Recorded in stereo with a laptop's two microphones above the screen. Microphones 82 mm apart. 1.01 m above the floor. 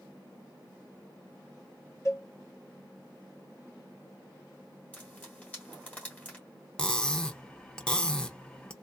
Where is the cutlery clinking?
10° left (ahead or behind), 0.7 m.